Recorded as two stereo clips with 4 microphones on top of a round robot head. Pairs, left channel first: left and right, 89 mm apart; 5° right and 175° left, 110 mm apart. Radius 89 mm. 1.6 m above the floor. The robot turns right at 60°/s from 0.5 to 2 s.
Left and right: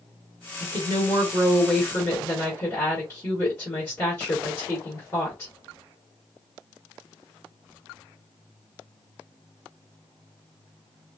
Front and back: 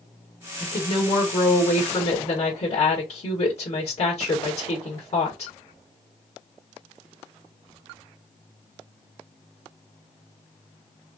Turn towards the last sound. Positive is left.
turn(degrees=25)